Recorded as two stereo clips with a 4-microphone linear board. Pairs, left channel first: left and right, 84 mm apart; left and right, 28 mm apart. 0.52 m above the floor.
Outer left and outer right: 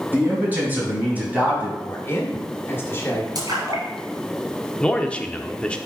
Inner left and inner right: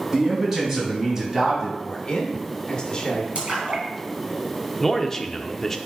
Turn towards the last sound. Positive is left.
turn(degrees=15)  # may be behind; listen again after turning